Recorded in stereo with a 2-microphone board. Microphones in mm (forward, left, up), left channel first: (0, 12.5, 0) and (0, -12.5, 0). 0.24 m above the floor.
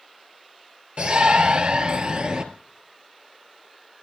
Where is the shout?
50° right (ahead or behind), 3.5 m; by 2.4 s 40° right (ahead or behind), 4.5 m.